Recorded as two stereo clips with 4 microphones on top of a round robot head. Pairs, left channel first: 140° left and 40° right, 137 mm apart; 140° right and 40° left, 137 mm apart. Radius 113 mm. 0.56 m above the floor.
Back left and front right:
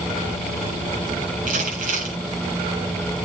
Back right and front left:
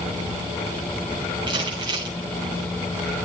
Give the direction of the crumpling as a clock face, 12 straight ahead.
1 o'clock.